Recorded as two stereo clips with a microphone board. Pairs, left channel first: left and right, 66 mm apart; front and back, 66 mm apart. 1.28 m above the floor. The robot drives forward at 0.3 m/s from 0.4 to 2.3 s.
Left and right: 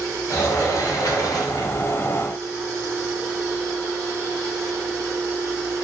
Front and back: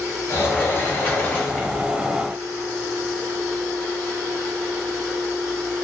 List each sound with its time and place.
0.3 s a sliding door: 55° left, 1.0 m; by 1.8 s 80° left, 0.8 m